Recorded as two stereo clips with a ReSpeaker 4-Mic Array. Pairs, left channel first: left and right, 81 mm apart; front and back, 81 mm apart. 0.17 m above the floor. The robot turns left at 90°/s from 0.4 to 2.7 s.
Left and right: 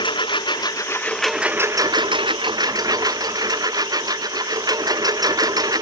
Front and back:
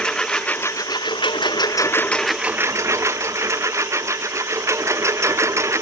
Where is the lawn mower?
80° left; by 5.8 s 130° right.